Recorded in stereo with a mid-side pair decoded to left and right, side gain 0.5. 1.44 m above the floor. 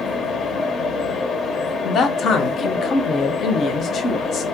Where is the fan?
45° left, 0.8 m.